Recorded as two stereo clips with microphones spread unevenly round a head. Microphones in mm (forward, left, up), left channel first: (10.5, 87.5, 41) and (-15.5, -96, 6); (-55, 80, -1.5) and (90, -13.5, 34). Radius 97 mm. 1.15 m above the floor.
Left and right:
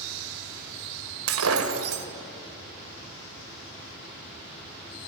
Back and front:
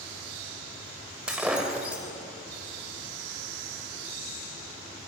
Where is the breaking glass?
115° right, 2.0 m.